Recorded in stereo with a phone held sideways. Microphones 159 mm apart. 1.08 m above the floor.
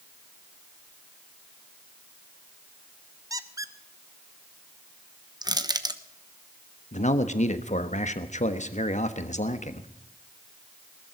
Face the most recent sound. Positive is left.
turn(degrees=50)  # may be behind; listen again after turning